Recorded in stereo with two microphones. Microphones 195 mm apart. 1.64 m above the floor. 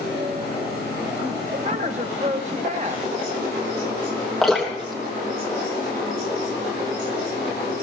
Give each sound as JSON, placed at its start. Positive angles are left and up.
{"t": 1.5, "sound": "a woman speaking", "side_deg": -35, "distance_m": 1.2}
{"t": 4.4, "sound": "dripping", "side_deg": 0, "distance_m": 3.0}